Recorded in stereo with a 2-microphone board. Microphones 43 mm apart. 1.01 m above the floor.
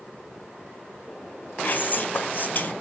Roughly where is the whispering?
Left.